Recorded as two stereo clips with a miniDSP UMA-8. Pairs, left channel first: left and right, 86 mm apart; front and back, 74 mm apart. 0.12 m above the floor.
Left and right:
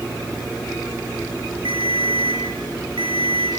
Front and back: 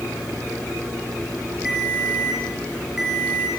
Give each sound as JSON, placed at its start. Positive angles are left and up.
{"t": 1.6, "sound": "a ringtone", "azimuth_deg": -100, "distance_m": 5.0}